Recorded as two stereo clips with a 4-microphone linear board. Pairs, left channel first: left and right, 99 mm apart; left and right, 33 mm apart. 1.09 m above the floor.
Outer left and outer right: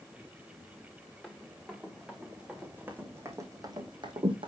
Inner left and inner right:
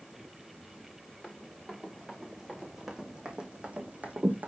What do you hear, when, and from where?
1.2 s running footsteps: 5° left (ahead or behind), 4.5 m; by 4.5 s 60° right (ahead or behind), 2.5 m